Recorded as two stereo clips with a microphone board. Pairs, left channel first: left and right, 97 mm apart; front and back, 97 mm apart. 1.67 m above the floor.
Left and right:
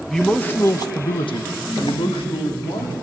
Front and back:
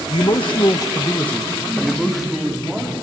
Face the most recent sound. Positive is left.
turn(degrees=100)